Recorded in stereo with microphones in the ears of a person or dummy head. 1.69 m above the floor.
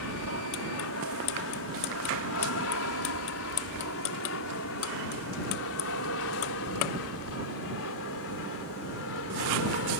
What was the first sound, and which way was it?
An aircraft, 70° left (ahead or behind).